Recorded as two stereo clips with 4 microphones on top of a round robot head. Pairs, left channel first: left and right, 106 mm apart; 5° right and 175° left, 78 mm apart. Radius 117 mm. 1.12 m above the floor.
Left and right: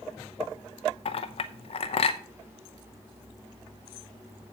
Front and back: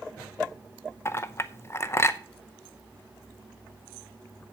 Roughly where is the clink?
Ahead left.